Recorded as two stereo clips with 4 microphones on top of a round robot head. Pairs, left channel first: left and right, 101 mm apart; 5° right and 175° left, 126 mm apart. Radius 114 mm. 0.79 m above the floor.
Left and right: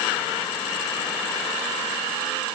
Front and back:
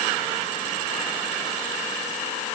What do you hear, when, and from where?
Only background noise.